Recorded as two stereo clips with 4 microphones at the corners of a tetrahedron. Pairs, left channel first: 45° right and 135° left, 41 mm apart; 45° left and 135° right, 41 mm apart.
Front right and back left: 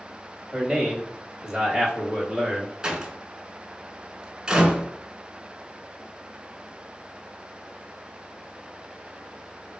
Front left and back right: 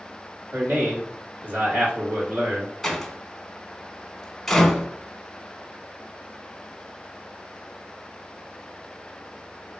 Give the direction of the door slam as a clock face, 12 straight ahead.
8 o'clock.